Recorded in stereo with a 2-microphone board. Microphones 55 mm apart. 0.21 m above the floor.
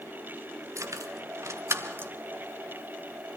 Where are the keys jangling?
60° right (ahead or behind), 1.8 m; by 2.1 s 35° right (ahead or behind), 1.8 m.